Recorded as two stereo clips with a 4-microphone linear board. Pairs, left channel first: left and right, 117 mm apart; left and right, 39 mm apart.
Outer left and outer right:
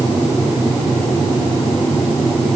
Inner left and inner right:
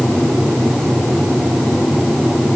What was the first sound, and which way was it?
Only background noise.